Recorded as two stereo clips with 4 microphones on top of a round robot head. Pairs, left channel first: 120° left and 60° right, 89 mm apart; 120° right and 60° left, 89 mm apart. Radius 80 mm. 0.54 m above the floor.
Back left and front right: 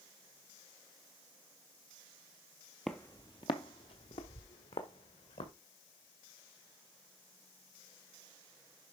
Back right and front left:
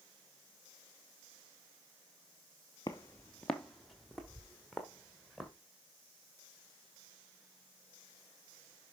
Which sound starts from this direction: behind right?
Footsteps, at 2.9 s.